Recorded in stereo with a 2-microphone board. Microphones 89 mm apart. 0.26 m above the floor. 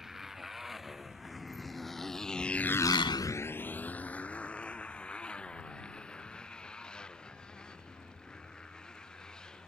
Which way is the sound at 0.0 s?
5° right (ahead or behind).